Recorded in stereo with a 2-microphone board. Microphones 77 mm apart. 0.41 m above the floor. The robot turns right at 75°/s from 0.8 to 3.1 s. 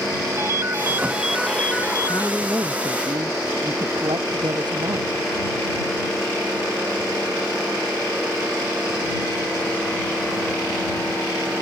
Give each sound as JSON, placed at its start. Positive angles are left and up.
{"t": 0.4, "sound": "a ringtone", "azimuth_deg": -40}
{"t": 2.1, "sound": "a woman speaking", "azimuth_deg": 180}